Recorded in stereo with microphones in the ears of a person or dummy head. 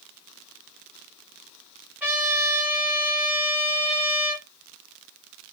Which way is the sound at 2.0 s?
10° right (ahead or behind).